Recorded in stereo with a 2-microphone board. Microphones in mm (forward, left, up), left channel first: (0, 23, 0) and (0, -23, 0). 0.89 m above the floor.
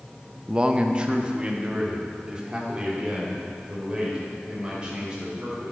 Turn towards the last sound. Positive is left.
turn(degrees=-20)  # may be behind; listen again after turning